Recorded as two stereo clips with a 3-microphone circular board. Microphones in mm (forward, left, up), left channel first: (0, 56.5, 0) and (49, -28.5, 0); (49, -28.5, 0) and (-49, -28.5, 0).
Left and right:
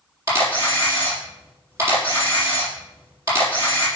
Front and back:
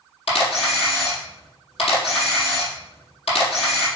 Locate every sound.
0.3 s a camera shutter: straight ahead, 4 m